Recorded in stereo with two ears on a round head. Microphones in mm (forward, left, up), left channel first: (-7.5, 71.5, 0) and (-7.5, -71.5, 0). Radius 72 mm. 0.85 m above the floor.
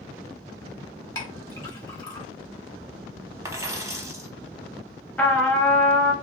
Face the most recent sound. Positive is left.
turn(degrees=10)  # may be behind; listen again after turning